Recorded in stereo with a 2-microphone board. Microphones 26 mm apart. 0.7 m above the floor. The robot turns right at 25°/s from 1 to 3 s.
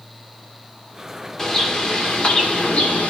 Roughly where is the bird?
Ahead left.